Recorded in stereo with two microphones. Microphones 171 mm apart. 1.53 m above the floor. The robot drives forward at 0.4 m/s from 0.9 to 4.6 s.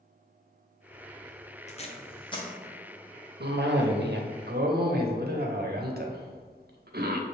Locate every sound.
1.7 s tape being pulled: 40° left (ahead or behind), 0.6 m; by 2.5 s 25° left (ahead or behind), 0.9 m
3.4 s a cough: 75° right (ahead or behind), 0.7 m; by 7.2 s 65° right (ahead or behind), 0.7 m